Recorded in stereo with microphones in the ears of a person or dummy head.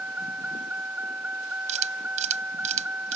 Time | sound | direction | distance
0.0 | a vehicle | 5° right (ahead or behind) | ?
1.7 | a camera shutter | 35° right (ahead or behind) | ?